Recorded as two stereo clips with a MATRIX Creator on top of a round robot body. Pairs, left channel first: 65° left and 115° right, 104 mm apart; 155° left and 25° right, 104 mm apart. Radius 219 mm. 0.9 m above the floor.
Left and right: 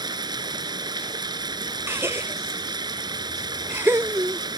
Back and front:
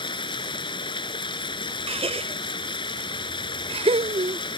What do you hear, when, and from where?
0.0 s running water: 160° right
1.9 s a gasp: 45° right